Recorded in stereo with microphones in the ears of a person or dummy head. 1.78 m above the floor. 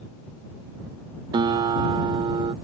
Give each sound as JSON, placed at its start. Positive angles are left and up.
{"t": 1.3, "sound": "a guitar", "side_deg": -20}